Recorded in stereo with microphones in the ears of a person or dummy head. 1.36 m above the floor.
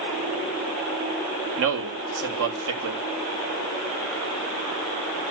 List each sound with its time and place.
1.6 s a man speaking: 70° right (ahead or behind), 3 m